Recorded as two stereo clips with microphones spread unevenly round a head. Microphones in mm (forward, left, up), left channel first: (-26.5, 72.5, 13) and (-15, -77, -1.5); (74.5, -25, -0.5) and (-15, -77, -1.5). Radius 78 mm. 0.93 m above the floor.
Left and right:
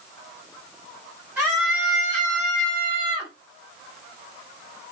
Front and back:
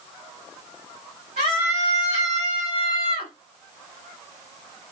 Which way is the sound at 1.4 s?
160° right.